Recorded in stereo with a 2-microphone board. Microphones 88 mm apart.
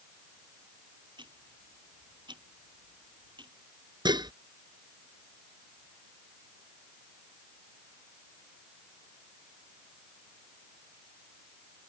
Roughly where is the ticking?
Right.